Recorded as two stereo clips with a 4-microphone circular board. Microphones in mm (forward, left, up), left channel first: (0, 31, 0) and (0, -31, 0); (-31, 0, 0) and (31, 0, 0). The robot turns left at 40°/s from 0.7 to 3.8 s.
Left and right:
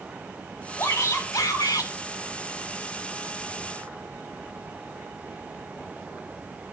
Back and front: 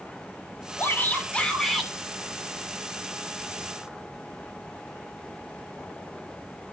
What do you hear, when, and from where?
0.8 s a shout: 130° left, 2.5 m; by 1.9 s 85° left, 2.5 m